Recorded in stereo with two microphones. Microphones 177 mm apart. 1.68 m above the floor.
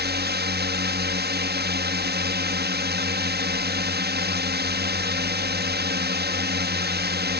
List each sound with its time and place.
0.0 s a drone: 70° right (ahead or behind)